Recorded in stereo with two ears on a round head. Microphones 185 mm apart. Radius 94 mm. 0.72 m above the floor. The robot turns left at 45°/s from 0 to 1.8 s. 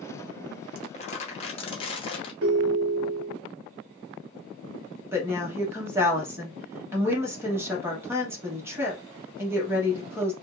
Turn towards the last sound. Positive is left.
turn(degrees=-10)  # may be behind; listen again after turning